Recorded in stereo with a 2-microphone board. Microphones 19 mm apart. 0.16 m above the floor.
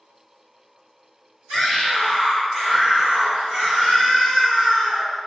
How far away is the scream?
About 1.9 m.